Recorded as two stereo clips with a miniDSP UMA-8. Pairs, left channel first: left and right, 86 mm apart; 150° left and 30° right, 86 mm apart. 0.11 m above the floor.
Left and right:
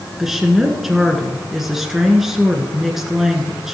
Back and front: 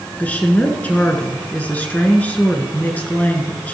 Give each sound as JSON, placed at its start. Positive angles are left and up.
{"t": 0.2, "sound": "a woman speaking", "azimuth_deg": -170, "distance_m": 1.6}